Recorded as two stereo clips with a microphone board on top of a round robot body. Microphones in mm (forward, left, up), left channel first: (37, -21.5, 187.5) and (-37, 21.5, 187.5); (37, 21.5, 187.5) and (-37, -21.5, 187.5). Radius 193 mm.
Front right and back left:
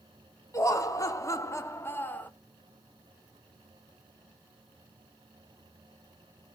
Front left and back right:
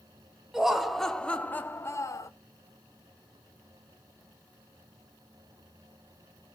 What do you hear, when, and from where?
0.5 s laughter: 70° right, 1.2 m; by 2.3 s 35° left, 1.0 m